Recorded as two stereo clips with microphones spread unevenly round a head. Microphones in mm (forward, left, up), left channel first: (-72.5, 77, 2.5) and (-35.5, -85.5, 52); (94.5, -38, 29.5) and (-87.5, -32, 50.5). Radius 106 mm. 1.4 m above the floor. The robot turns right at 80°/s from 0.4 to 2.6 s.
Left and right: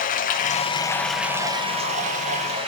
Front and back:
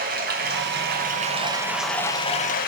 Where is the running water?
145° left, 0.7 m; by 2.7 s 35° right, 0.7 m.